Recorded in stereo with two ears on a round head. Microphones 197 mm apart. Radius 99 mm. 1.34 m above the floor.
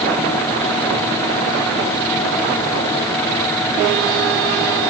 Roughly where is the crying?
No crying in this recording.